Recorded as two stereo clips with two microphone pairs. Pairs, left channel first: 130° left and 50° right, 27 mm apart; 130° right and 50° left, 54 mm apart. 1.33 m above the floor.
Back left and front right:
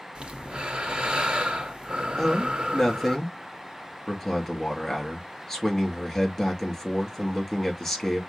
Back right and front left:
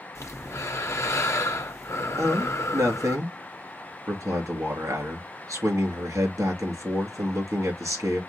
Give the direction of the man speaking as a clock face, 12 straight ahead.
10 o'clock.